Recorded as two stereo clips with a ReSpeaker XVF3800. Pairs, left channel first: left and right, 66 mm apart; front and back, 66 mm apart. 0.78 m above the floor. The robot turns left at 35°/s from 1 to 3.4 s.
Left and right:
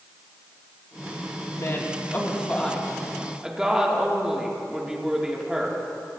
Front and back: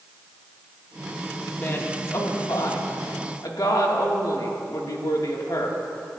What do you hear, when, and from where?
1.5 s a woman speaking: 55° left, 1.6 m; by 6.2 s 10° right, 1.6 m